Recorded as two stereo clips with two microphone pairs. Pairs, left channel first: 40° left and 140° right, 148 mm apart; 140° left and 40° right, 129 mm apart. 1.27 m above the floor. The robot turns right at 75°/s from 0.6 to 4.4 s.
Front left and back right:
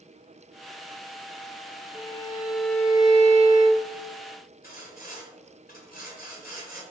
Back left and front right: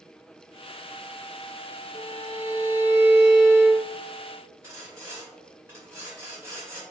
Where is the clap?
I don't hear a clap.